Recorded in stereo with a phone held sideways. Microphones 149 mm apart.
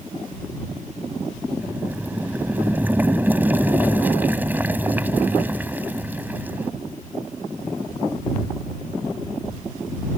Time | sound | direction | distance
1.6 | boiling | 10° right (ahead or behind) | ?